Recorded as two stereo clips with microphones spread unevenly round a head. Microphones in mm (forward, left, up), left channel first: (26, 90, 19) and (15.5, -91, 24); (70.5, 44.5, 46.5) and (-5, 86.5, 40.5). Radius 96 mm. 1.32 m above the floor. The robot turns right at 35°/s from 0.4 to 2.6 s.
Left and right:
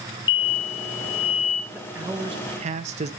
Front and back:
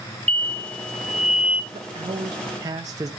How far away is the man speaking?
About 0.5 m.